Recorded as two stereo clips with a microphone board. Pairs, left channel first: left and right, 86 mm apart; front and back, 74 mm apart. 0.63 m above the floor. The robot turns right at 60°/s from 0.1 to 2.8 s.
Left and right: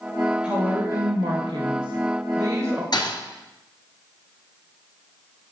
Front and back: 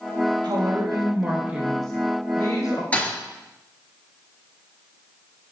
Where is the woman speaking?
170° right, 2 m; by 2.8 s 30° right, 2 m.